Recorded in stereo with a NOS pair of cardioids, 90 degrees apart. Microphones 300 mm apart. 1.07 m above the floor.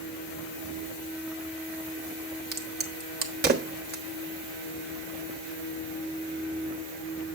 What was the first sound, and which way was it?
A crack, 35° right.